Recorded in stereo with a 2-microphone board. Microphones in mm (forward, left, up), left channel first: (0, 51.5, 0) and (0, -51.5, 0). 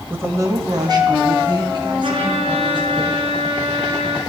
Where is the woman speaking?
20° right (ahead or behind), 1.1 m; by 3.0 s 50° right (ahead or behind), 5 m.